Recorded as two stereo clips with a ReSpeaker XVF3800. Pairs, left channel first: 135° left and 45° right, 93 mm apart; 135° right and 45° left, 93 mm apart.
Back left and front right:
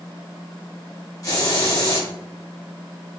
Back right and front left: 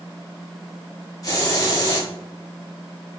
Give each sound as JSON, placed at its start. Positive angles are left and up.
{"t": 1.2, "sound": "a hiss", "azimuth_deg": 180, "distance_m": 1.4}